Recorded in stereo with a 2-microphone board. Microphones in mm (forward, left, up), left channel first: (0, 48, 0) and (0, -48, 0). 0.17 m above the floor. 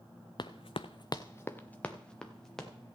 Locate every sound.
0.4 s running footsteps: 55° left (ahead or behind), 0.6 m; by 2.7 s 5° left (ahead or behind), 2 m